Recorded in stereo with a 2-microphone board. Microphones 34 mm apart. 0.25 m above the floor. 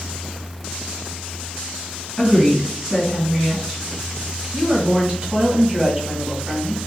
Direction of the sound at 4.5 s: 30° right (ahead or behind).